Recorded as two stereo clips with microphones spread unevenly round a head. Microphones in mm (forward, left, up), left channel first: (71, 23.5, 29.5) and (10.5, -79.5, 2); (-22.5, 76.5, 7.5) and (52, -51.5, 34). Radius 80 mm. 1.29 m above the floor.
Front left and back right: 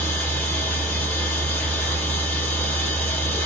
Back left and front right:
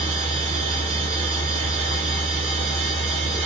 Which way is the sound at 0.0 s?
15° right.